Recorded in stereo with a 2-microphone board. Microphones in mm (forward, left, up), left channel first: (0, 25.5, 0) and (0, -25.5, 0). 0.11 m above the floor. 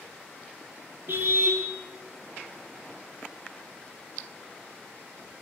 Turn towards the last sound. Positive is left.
turn(degrees=-45)  # may be behind; listen again after turning